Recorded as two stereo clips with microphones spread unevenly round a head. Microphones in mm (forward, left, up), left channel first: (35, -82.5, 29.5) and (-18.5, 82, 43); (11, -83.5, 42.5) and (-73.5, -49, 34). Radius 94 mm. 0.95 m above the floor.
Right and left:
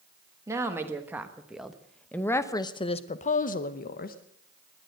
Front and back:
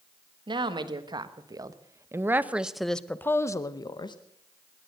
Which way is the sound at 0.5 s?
175° right.